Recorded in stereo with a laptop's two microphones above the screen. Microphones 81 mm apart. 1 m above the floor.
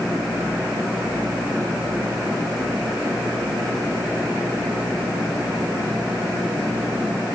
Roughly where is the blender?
No blender in this recording.